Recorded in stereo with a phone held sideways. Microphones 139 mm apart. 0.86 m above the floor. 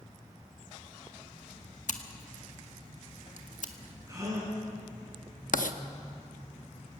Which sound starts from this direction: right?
A gasp, at 4.1 s.